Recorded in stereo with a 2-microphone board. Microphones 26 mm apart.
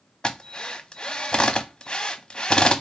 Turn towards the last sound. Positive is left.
turn(degrees=30)  # may be behind; listen again after turning